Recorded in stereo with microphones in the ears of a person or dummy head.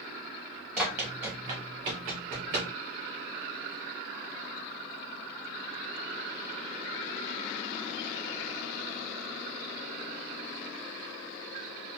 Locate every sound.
0.8 s running footsteps: 5° right (ahead or behind), 1.5 m; by 2.7 s 40° right (ahead or behind), 1.4 m